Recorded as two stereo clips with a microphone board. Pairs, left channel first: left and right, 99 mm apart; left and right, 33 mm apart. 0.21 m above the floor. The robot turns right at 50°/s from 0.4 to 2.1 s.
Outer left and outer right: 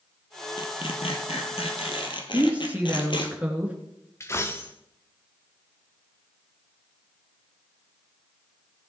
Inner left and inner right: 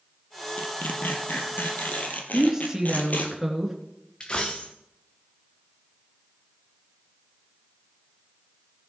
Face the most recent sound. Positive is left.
turn(degrees=25)  # may be behind; listen again after turning